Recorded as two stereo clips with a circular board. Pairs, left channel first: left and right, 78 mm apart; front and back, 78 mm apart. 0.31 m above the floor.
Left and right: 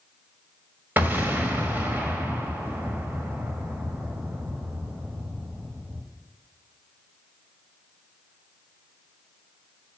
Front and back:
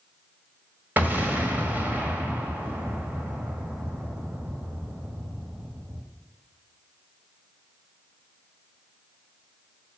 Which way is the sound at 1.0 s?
135° right.